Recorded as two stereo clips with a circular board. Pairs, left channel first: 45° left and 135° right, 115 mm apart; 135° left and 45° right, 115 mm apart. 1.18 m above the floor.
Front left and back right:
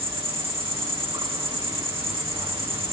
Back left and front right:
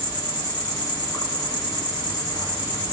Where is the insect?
175° right, 1.8 m.